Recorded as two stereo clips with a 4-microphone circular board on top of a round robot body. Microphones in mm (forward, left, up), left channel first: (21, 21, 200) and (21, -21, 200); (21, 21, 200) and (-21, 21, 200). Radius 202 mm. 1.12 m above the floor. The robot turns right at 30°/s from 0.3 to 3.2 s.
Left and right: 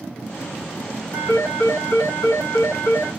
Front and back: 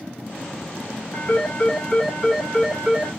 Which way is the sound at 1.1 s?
60° left.